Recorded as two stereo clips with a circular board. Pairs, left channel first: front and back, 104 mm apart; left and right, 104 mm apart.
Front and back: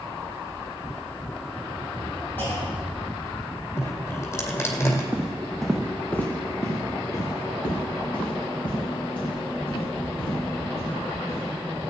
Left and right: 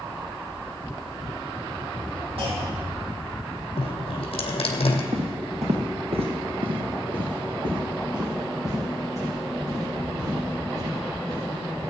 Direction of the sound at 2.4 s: 70° right.